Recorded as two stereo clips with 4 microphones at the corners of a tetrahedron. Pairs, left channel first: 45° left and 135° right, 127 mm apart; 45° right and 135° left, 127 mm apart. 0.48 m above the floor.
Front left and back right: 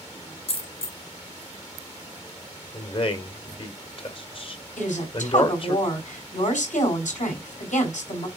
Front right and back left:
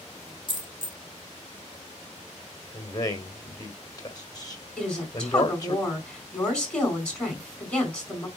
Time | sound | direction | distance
0.5 | a dropped coin | 5° left | 1.3 m
2.7 | a man speaking | 10° left | 1.7 m
4.8 | a woman speaking | 35° left | 4 m